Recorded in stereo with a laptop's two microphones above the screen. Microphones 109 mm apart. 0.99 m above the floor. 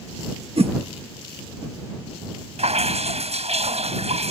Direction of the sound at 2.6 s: 80° right.